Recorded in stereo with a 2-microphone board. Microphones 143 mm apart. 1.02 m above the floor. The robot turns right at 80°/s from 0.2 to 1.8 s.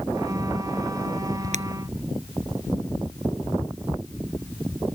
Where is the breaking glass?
55° right (ahead or behind); by 1.6 s 45° right (ahead or behind).